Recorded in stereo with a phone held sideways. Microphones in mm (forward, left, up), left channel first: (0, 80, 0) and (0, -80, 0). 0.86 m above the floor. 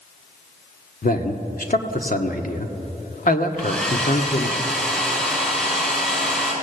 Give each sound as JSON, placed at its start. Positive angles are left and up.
{"t": 1.0, "sound": "a man speaking", "side_deg": 65, "distance_m": 1.6}
{"t": 3.6, "sound": "a hair dryer", "side_deg": 5, "distance_m": 6.5}